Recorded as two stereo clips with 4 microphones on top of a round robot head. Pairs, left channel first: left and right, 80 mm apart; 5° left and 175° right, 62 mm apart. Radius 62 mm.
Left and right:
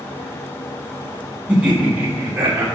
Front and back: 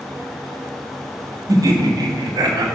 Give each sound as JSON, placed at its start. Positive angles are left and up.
{"t": 1.5, "sound": "laughter", "azimuth_deg": -170, "distance_m": 1.4}